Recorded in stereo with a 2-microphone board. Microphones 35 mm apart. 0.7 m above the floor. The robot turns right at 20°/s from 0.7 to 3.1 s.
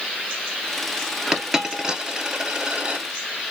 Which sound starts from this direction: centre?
A dropped coin, at 1.3 s.